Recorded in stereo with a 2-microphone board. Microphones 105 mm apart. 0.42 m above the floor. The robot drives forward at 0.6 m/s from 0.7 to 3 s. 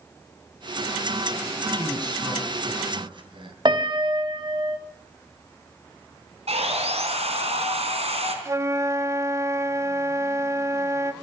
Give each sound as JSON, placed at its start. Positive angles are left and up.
{"t": 1.8, "sound": "a man speaking", "side_deg": -40, "distance_m": 3.5}
{"t": 3.6, "sound": "a piano", "side_deg": -45, "distance_m": 1.5}
{"t": 6.5, "sound": "sawing", "side_deg": -75, "distance_m": 4.0}
{"t": 8.4, "sound": "a flute", "side_deg": -30, "distance_m": 0.8}